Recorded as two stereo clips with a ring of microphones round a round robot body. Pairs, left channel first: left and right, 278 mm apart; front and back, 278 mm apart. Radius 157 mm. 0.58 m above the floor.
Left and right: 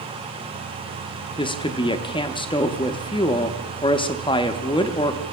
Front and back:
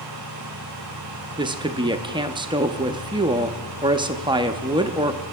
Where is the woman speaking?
135° left, 0.7 m.